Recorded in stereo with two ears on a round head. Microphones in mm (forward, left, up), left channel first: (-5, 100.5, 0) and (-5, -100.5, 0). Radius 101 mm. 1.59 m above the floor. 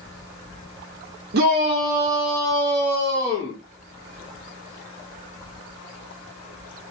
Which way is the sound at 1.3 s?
50° right (ahead or behind).